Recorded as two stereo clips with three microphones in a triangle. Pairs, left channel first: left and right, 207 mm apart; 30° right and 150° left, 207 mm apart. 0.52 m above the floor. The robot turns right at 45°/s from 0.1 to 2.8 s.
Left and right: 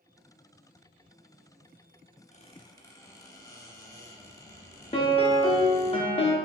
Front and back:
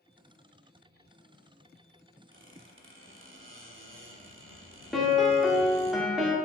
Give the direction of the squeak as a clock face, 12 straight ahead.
7 o'clock.